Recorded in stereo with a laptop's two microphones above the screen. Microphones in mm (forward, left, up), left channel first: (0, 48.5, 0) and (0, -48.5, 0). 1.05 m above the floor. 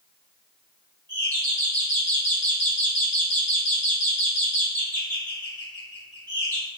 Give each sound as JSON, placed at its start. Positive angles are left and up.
{"t": 1.1, "sound": "a doorbell", "side_deg": 25, "distance_m": 1.4}